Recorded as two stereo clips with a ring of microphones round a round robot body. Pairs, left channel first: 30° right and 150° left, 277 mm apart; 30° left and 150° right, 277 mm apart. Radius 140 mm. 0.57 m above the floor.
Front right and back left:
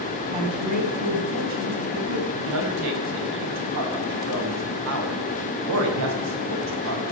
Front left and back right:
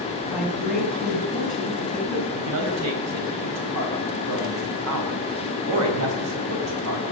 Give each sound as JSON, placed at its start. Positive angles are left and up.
{"t": 0.3, "sound": "a woman speaking", "azimuth_deg": 125, "distance_m": 4.5}
{"t": 2.3, "sound": "a man speaking", "azimuth_deg": 180, "distance_m": 3.5}